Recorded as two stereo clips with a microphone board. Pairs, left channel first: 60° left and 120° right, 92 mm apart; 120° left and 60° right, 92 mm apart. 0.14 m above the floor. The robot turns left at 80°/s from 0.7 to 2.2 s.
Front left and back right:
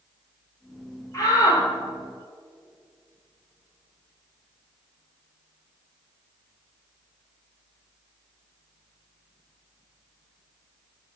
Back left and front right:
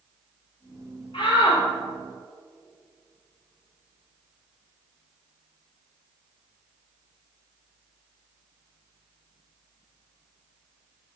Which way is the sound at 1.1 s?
115° left.